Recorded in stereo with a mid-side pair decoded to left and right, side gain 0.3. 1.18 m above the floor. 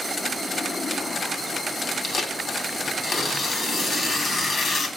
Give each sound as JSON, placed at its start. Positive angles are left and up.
{"t": 2.0, "sound": "tearing paper", "azimuth_deg": 70, "distance_m": 3.0}